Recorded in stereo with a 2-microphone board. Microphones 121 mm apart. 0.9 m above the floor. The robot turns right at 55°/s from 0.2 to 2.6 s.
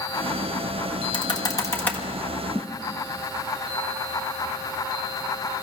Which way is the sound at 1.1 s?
45° left (ahead or behind).